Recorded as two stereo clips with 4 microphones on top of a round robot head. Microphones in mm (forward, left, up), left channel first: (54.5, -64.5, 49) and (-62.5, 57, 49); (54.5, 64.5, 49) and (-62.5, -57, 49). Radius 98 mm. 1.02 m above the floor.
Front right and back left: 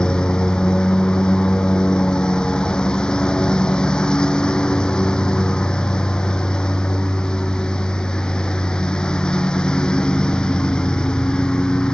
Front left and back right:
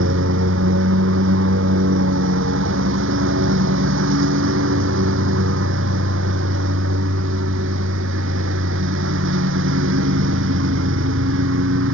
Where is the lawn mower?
130° right.